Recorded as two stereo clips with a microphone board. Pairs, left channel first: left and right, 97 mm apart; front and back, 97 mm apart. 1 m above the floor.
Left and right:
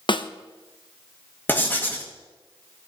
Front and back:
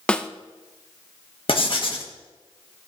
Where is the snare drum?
80° left, 0.6 m.